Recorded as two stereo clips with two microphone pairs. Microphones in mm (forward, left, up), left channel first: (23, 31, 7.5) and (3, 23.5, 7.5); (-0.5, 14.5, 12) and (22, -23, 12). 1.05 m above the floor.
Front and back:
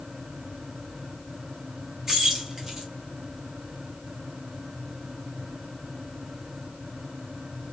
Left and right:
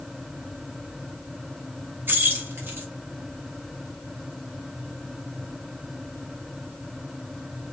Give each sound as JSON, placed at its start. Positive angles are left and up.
{"t": 2.1, "sound": "keys jangling", "azimuth_deg": -90, "distance_m": 1.0}